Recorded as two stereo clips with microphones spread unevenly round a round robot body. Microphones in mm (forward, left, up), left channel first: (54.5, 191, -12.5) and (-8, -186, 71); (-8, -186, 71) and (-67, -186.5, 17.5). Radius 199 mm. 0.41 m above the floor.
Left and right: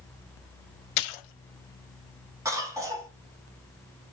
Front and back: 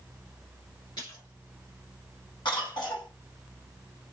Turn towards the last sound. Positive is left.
turn(degrees=5)